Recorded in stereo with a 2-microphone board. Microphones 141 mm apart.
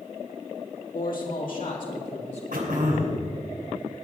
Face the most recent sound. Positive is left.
turn(degrees=-80)